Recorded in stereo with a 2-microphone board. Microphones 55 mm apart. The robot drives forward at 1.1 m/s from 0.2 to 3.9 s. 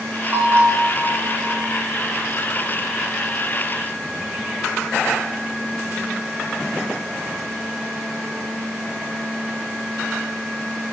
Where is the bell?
40° right (ahead or behind), 4 m; by 1.7 s 60° right (ahead or behind), 3 m.